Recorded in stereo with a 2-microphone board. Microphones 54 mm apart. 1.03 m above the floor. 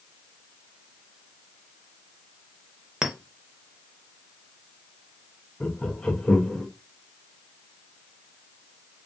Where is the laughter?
20° left (ahead or behind), 0.5 m.